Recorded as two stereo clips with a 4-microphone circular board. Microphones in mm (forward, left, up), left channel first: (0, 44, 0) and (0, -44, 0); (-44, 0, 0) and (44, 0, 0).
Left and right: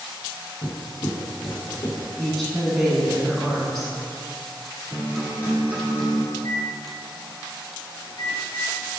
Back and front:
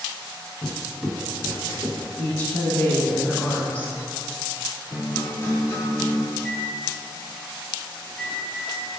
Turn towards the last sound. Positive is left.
turn(degrees=105)